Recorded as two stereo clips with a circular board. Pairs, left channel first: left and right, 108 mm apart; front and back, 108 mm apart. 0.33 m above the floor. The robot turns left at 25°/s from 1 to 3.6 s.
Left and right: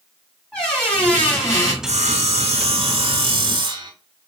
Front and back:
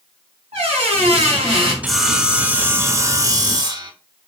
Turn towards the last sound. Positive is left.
turn(degrees=-135)